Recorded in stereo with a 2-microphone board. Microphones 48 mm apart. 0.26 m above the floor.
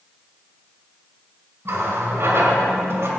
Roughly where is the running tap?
Right.